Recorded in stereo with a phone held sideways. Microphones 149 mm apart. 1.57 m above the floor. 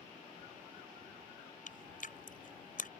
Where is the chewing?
65° left (ahead or behind).